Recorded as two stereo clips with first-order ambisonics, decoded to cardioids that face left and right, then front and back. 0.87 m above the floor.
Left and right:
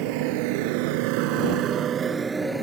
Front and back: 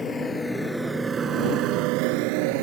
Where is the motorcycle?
70° right; by 2.6 s 175° right.